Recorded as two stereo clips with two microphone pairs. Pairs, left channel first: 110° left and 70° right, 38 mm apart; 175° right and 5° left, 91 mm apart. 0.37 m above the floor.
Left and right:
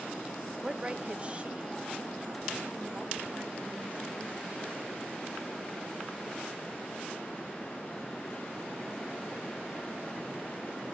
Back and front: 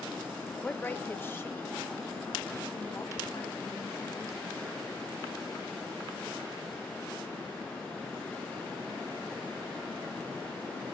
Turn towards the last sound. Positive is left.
turn(degrees=-120)